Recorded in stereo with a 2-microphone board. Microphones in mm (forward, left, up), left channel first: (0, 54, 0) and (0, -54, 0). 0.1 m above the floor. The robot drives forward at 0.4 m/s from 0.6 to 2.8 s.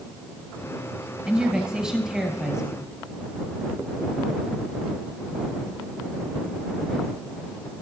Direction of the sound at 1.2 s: 5° right (ahead or behind).